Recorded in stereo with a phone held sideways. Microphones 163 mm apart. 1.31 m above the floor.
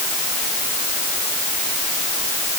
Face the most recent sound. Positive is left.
No sound to turn to.